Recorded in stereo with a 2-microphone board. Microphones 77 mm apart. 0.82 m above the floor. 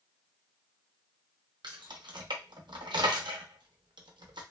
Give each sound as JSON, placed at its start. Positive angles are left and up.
{"t": 1.6, "sound": "keys jangling", "side_deg": -80, "distance_m": 0.5}